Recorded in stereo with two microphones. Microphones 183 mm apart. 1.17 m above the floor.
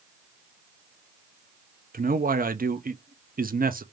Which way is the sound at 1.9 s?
55° right (ahead or behind).